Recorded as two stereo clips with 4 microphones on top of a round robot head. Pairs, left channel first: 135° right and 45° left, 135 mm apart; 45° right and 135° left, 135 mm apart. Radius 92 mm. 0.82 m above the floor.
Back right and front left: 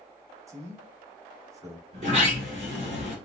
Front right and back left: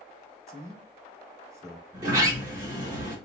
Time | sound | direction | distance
0.5 | a man speaking | 90° left | 1.0 m
1.9 | a sliding door | 70° left | 3 m